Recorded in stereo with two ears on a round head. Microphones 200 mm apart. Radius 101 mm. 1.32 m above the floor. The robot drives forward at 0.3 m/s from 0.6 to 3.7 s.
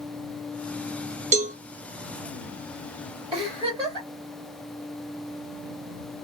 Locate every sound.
1.3 s a cowbell: 30° right (ahead or behind), 0.8 m; by 1.6 s 35° right (ahead or behind), 0.8 m
3.3 s a giggle: 25° right (ahead or behind), 1.8 m